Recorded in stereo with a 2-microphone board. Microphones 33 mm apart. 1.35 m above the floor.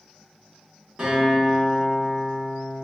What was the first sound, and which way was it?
A guitar, 20° right (ahead or behind).